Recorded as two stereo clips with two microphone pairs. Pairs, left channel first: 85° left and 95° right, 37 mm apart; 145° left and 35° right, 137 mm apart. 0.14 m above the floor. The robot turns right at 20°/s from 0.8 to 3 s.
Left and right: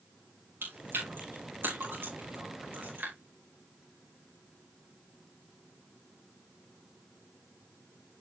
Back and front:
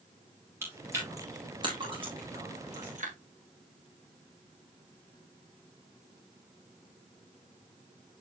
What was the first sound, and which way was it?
Chewing, 105° right.